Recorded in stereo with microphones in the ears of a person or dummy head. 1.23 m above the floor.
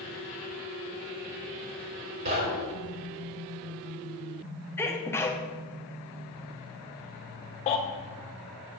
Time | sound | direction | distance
2.2 | knocking | 60° right (ahead or behind) | 3.5 m
4.8 | a sneeze | 10° left (ahead or behind) | 1.0 m
7.7 | a baby crying | 35° left (ahead or behind) | 1.3 m